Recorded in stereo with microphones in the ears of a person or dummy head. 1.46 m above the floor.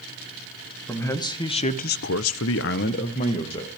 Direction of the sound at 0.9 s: 15° left (ahead or behind).